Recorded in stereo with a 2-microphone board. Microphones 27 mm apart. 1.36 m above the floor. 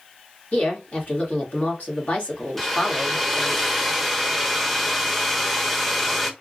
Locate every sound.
0.5 s a woman speaking: 55° left (ahead or behind), 1.6 m
2.6 s a hair dryer: 10° left (ahead or behind), 0.7 m